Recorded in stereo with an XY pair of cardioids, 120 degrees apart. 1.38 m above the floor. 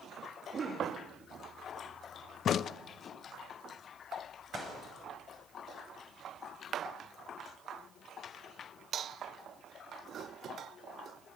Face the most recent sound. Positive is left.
turn(degrees=35)